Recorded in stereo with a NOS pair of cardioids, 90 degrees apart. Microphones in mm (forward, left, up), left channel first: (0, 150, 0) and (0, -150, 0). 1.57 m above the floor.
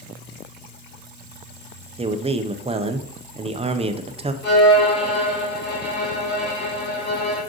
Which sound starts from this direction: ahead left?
A violin, at 4.4 s.